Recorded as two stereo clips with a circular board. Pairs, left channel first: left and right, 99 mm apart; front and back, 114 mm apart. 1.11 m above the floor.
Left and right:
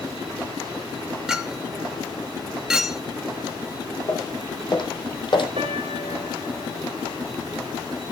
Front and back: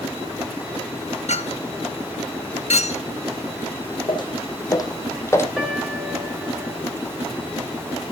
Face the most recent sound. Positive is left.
turn(degrees=-95)